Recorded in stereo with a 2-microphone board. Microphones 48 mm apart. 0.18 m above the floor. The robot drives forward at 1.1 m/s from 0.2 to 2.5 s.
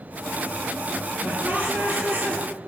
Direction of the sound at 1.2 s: 35° right (ahead or behind).